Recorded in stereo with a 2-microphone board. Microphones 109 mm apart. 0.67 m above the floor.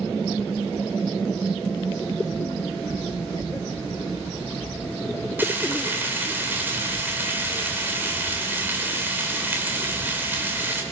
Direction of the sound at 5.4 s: 15° right (ahead or behind).